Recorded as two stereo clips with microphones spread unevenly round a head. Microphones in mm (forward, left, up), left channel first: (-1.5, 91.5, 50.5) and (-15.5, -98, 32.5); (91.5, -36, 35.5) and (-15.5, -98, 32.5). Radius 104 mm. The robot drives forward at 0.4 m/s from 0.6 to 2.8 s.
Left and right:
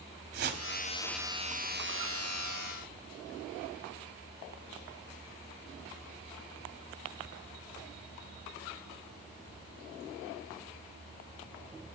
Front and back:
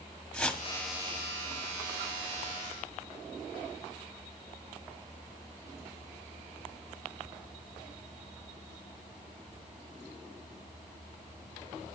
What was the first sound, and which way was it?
A whoosh, 55° right.